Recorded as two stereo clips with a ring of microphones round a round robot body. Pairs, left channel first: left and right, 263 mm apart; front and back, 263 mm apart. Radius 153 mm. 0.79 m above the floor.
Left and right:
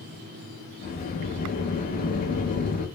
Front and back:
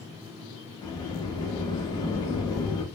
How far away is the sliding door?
About 0.6 m.